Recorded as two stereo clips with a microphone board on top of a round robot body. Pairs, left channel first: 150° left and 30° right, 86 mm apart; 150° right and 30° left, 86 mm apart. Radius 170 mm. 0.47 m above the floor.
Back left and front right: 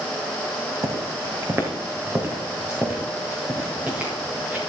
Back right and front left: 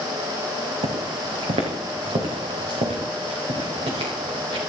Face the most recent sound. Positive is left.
turn(degrees=45)